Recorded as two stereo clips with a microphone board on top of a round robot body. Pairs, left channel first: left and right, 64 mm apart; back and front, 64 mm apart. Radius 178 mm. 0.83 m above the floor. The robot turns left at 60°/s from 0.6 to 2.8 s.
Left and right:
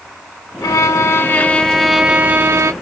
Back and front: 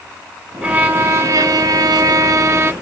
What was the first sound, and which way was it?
A violin, 70° left.